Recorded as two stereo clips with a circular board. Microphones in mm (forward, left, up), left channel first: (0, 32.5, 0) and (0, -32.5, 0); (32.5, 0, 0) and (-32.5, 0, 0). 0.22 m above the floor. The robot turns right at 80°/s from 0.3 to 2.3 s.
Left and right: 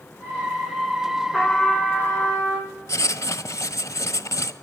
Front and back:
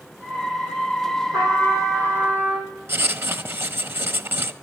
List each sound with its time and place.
1.3 s a trumpet: 160° left, 6 m; by 2.7 s 120° right, 6 m
2.9 s writing: 130° left, 1.0 m